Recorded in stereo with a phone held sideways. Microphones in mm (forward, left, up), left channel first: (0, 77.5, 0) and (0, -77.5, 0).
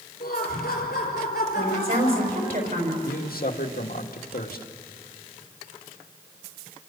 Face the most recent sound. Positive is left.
turn(degrees=75)  # may be behind; listen again after turning